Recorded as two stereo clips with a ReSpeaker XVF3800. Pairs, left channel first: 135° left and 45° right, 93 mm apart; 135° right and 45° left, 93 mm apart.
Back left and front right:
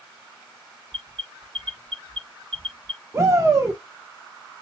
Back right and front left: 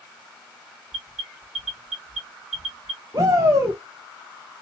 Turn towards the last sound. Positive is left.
turn(degrees=5)